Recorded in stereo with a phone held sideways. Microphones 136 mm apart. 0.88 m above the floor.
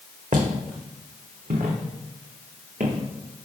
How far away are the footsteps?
About 2 m.